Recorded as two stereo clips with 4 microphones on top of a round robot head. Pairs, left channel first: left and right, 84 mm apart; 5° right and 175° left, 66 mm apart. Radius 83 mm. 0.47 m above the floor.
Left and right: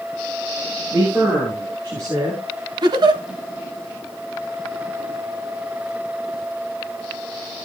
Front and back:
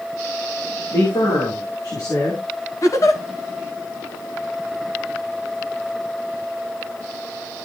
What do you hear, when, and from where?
0.9 s a man speaking: 25° right, 8 m; by 2.4 s 35° right, 9 m
2.8 s a giggle: 50° right, 1.6 m